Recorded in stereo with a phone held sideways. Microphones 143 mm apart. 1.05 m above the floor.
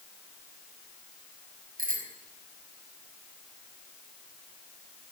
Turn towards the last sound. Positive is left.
turn(degrees=-80)